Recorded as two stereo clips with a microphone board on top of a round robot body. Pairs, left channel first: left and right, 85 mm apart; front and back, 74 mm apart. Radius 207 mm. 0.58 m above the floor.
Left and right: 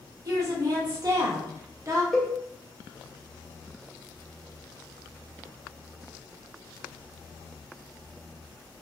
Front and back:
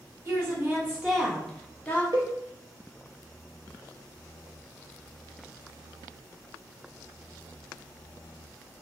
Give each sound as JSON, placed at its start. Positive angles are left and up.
{"t": 0.2, "sound": "a woman speaking", "azimuth_deg": -130, "distance_m": 1.6}
{"t": 2.1, "sound": "a cowbell", "azimuth_deg": 170, "distance_m": 1.5}